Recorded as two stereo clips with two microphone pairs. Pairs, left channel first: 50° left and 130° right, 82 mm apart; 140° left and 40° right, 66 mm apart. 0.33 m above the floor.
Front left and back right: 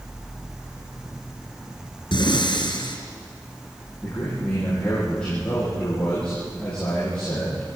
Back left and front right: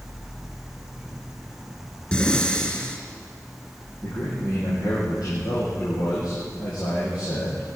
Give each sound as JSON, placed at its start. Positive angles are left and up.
{"t": 2.1, "sound": "breathing", "azimuth_deg": 65, "distance_m": 3.5}
{"t": 4.0, "sound": "a man speaking", "azimuth_deg": 130, "distance_m": 10.0}